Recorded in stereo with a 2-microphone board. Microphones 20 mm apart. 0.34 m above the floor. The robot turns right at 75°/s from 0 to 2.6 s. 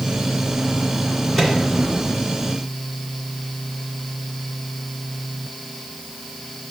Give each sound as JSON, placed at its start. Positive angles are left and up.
{"t": 1.4, "sound": "a microwave", "side_deg": 25, "distance_m": 2.0}